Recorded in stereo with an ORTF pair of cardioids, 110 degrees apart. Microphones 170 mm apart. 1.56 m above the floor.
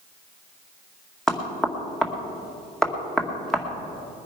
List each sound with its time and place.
1.3 s knocking: 5° left, 2 m